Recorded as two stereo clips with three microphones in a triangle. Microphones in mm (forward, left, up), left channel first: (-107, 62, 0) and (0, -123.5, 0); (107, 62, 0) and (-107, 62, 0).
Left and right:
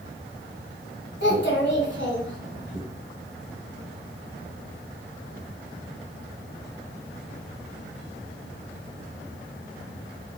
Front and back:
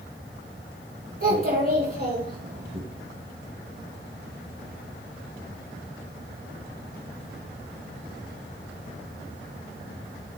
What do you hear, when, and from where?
1.2 s a child speaking: 140° left, 1.7 m